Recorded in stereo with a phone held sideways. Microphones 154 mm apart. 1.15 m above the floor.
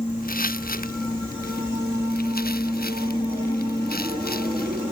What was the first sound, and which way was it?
Footsteps, 65° left (ahead or behind).